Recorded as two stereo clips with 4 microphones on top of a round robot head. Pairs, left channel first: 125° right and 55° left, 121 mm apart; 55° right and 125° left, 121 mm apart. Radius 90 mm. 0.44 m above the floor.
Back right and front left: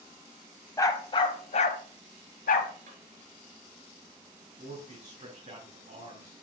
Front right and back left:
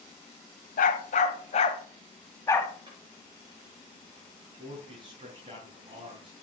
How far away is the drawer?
About 3.5 m.